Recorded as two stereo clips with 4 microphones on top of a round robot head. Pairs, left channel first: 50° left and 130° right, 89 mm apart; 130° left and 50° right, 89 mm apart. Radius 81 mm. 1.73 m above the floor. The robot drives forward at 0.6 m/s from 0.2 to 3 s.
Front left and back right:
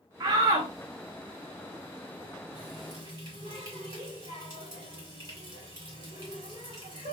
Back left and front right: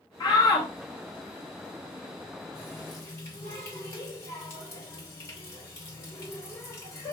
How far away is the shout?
About 0.5 m.